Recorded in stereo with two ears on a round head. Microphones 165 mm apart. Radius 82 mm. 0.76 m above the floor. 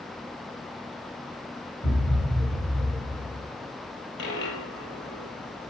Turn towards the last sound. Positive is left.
turn(degrees=65)  # may be behind; listen again after turning